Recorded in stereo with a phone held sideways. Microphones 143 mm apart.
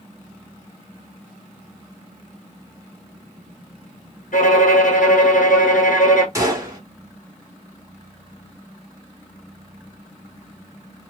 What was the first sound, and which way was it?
A violin, 65° left (ahead or behind).